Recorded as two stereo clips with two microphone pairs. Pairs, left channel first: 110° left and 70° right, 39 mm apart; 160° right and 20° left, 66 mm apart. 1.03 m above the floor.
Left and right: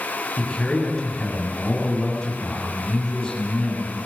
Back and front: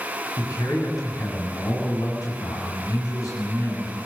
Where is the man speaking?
Straight behind, 7 m.